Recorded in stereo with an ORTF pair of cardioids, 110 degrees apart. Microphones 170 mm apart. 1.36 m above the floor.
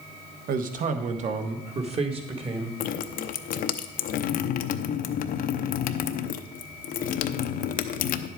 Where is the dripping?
60° left, 0.7 m.